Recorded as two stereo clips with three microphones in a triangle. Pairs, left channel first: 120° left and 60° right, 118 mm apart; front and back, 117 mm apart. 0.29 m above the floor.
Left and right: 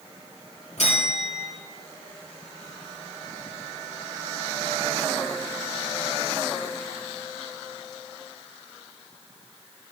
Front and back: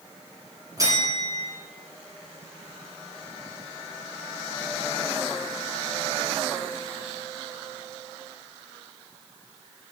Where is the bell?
120° left, 5 m.